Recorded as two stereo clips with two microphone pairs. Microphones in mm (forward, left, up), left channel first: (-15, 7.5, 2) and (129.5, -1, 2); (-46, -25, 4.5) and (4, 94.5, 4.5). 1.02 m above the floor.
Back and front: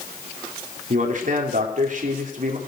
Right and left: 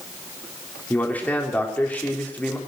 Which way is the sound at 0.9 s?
35° right.